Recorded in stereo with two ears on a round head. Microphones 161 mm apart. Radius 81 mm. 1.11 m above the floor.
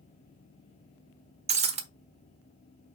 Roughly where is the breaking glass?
Right.